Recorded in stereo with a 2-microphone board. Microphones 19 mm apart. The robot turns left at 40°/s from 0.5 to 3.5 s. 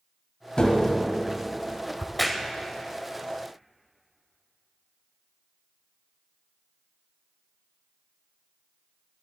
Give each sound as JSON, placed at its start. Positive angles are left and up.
{"t": 0.6, "sound": "tapping", "side_deg": 50, "distance_m": 1.4}
{"t": 2.0, "sound": "a crack", "side_deg": 10, "distance_m": 0.7}